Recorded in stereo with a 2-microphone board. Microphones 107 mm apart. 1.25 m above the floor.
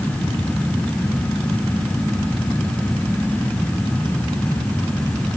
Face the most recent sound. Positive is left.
No sound to turn to.